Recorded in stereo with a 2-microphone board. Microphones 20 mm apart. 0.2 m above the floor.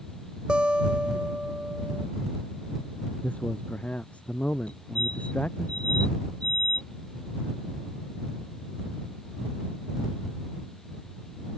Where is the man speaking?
80° left.